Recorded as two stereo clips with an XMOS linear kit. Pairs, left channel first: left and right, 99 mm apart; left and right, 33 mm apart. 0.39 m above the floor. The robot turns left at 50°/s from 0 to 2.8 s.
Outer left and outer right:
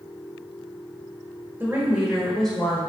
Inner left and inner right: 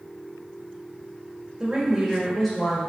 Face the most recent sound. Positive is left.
turn(degrees=155)